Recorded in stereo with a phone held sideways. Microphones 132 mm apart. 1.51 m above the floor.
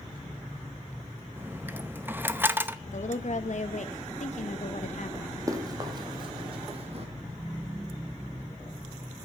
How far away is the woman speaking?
About 1.7 m.